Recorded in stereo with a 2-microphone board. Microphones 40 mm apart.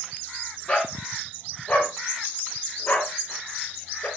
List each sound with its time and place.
0.7 s a dog barking: 15° left (ahead or behind), 4.5 m; by 4.1 s 40° left (ahead or behind), 5 m